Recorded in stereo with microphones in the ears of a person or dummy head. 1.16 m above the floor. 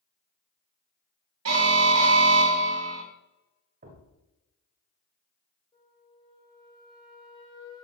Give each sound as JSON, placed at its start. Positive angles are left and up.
{"t": 1.4, "sound": "an alarm", "side_deg": -85, "distance_m": 2.0}
{"t": 3.8, "sound": "a thud", "side_deg": -45, "distance_m": 1.2}
{"t": 5.7, "sound": "a flute", "side_deg": 30, "distance_m": 2.5}